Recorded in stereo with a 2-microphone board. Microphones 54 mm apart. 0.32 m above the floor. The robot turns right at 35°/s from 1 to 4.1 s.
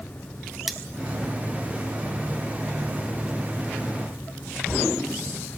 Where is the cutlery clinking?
5° right (ahead or behind), 0.8 m.